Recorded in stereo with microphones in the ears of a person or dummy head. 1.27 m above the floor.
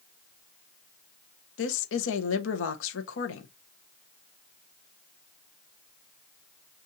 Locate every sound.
1.6 s a woman speaking: 80° left, 1.0 m